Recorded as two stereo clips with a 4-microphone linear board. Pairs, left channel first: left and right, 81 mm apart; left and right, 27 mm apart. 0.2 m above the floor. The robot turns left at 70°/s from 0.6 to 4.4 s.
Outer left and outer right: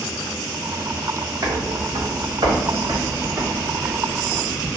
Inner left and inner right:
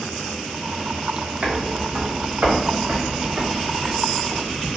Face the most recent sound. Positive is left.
turn(degrees=30)  # may be behind; listen again after turning